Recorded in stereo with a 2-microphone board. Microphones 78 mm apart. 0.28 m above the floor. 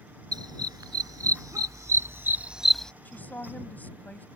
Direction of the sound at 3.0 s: 25° left (ahead or behind).